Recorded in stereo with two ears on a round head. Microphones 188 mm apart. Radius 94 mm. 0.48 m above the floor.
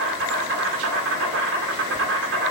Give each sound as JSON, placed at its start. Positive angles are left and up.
{"t": 0.0, "sound": "an insect", "side_deg": -65, "distance_m": 0.9}